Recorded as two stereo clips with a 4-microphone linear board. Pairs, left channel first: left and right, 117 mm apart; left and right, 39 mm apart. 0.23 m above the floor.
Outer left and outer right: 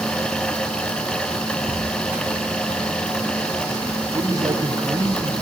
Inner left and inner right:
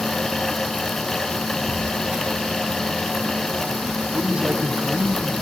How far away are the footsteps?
About 4 m.